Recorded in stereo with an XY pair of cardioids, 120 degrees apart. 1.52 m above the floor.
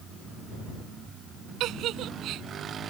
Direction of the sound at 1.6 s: 70° right.